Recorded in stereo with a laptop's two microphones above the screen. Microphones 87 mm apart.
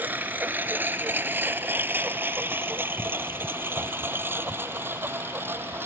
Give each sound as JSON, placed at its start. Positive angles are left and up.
{"t": 0.0, "sound": "a lawn mower", "side_deg": -20}